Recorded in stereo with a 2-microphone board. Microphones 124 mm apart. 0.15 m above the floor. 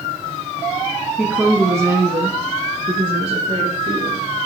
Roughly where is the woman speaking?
Centre.